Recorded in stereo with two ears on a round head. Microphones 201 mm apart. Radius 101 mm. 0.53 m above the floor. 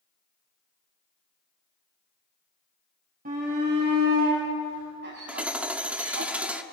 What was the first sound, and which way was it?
A shout, 40° right (ahead or behind).